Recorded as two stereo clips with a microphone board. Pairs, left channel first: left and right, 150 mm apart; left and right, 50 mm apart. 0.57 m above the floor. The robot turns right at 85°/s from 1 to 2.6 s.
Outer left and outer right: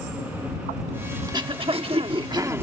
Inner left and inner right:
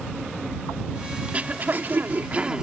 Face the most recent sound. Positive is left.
turn(degrees=-25)